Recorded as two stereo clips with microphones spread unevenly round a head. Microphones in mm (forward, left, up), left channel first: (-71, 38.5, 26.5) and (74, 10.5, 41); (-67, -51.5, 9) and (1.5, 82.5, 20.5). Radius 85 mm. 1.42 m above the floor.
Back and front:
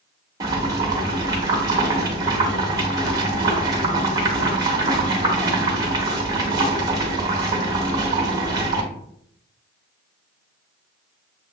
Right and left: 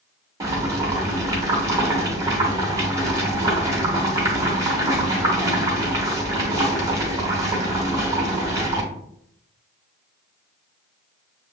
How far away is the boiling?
About 0.8 m.